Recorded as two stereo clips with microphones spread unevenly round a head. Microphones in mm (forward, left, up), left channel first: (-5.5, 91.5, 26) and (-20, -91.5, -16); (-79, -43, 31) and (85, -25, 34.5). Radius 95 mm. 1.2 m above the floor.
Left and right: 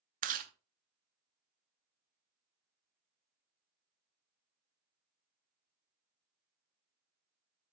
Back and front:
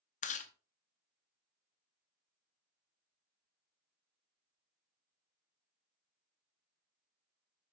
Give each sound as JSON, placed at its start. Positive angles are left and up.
{"t": 0.2, "sound": "chewing", "azimuth_deg": -145, "distance_m": 0.8}